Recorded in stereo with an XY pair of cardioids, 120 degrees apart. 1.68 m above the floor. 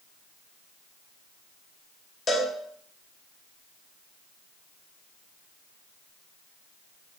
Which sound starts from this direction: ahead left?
A cowbell, at 2.3 s.